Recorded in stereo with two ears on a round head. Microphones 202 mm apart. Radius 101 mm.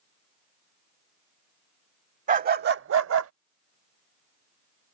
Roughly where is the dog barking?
Right.